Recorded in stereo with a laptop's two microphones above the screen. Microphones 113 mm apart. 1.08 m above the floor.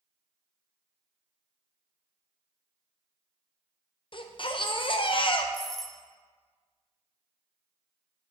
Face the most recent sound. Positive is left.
turn(degrees=5)  # may be behind; listen again after turning